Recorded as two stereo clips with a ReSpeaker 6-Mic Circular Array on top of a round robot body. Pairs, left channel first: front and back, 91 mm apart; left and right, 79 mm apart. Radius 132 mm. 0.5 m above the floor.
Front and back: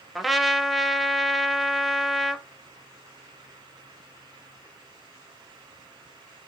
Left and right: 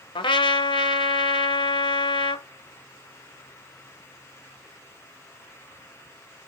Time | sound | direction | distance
0.1 | a trumpet | 90° left | 0.8 m